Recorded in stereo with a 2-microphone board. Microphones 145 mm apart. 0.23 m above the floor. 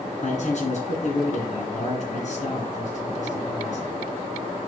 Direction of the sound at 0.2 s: 55° left (ahead or behind).